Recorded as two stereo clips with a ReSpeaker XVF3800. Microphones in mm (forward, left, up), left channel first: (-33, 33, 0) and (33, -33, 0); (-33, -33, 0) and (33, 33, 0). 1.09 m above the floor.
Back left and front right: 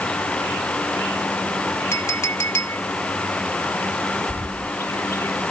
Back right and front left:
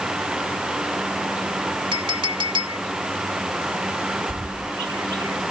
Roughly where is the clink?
Left.